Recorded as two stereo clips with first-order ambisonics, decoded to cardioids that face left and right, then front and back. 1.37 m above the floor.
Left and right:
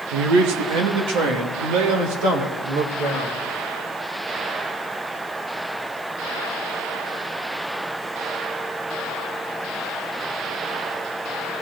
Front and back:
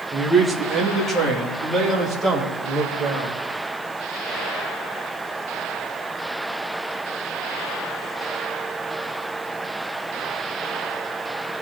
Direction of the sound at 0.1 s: 95° right.